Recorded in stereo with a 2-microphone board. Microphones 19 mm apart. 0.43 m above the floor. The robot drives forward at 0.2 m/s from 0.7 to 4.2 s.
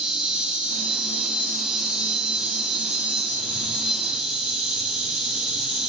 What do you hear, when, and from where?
0.0 s an insect: 65° right (ahead or behind), 4 m; by 5.9 s 60° right (ahead or behind), 4 m